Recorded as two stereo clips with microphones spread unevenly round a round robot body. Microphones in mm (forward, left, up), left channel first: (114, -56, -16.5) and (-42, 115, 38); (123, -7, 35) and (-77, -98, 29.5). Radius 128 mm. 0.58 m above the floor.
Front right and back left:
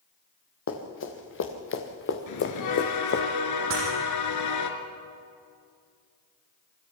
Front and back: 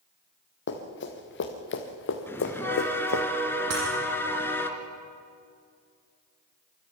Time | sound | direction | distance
0.7 | running footsteps | 15° right | 4 m
2.3 | a bell | 55° right | 2.5 m
3.7 | breaking glass | 175° left | 7 m